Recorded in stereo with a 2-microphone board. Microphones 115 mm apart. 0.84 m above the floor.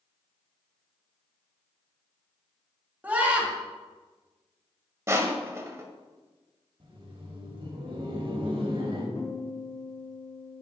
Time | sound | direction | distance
3.0 | a scream | 15° right (ahead or behind) | 1.7 m
5.1 | crushing | 25° right (ahead or behind) | 0.9 m
6.8 | laughter | 55° right (ahead or behind) | 1.9 m
9.2 | a guitar | 80° left | 1.7 m